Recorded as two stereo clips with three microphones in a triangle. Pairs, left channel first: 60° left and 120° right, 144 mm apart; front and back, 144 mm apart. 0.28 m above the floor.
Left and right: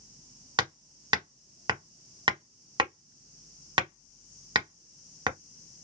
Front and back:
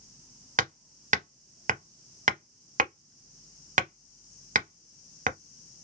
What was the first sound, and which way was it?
Hammering, 175° right.